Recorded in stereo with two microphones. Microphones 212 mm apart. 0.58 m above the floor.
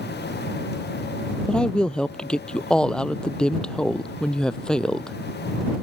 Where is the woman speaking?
5° left (ahead or behind).